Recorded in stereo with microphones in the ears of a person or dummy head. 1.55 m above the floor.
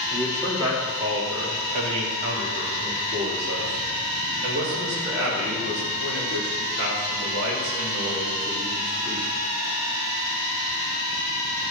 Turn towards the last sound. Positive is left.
turn(degrees=-70)  # may be behind; listen again after turning